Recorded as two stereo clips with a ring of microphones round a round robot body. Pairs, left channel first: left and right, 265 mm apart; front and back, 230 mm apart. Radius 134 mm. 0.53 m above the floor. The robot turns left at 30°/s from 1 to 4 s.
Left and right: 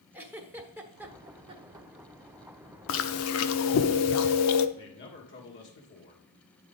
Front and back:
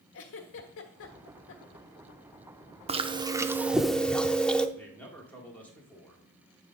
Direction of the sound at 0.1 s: 10° right.